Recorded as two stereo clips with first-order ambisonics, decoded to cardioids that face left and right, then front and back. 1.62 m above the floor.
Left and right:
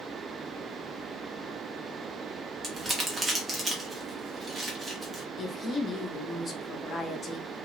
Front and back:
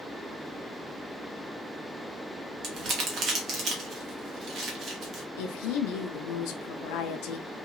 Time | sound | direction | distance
2.6 | crumpling | 155° right | 0.8 m
5.4 | a woman speaking | 25° left | 0.5 m